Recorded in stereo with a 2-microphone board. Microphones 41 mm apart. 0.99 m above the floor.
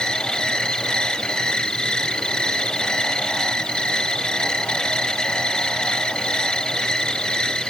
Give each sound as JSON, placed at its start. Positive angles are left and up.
{"t": 0.0, "sound": "an insect", "side_deg": 20}